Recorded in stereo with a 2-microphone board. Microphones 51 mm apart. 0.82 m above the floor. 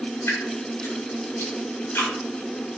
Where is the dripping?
45° left (ahead or behind), 2.0 m.